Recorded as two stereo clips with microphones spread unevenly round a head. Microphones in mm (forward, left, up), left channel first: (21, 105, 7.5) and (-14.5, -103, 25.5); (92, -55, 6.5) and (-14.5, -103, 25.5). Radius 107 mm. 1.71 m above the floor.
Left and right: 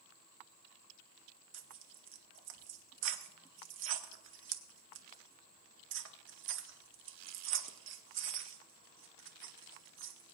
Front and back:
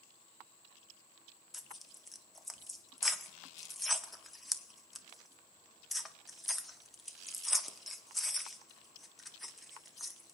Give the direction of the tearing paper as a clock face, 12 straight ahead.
2 o'clock.